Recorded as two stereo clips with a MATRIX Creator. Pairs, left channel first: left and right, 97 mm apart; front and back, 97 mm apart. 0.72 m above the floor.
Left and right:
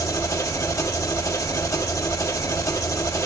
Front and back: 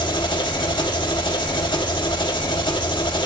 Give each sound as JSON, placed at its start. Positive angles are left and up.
{"t": 0.0, "sound": "an engine running", "azimuth_deg": 35, "distance_m": 1.6}